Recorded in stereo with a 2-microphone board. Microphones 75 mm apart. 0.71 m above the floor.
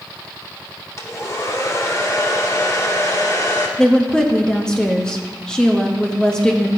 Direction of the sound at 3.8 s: 10° left (ahead or behind).